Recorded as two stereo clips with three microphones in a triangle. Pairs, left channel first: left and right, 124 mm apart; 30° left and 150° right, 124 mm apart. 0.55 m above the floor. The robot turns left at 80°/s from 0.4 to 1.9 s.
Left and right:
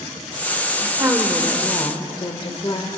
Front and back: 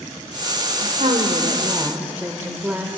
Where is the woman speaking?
135° right, 1.6 m; by 3.0 s 135° left, 1.6 m.